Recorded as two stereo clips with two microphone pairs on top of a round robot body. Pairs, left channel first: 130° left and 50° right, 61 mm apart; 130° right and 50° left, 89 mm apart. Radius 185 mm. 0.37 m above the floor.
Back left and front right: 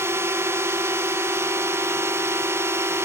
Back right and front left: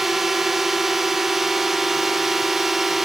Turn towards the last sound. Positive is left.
turn(degrees=-35)